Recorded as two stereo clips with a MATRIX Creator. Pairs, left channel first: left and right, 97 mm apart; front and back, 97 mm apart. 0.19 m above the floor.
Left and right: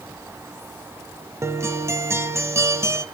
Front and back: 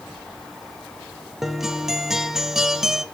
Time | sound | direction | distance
1.4 | a guitar | 95° right | 0.6 m